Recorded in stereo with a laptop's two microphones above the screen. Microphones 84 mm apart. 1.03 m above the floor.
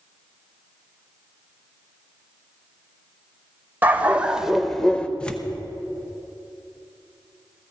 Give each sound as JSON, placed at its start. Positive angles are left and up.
{"t": 3.8, "sound": "a dog barking", "side_deg": -20, "distance_m": 0.9}
{"t": 5.2, "sound": "tearing paper", "side_deg": 10, "distance_m": 0.7}